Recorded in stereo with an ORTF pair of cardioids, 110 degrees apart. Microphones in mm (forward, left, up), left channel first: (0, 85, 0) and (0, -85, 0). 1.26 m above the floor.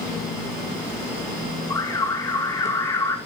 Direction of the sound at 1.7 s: 20° left.